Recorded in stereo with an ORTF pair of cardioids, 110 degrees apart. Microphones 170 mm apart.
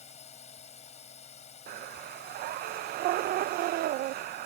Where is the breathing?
65° right.